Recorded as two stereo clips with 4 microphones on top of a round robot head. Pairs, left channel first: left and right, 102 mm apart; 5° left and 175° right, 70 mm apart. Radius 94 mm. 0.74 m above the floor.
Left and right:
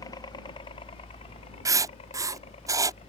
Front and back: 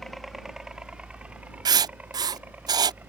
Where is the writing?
150° right.